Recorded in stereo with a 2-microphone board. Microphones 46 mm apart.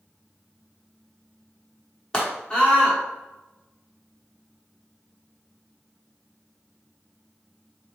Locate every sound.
2.1 s a scream: 15° left (ahead or behind), 1.1 m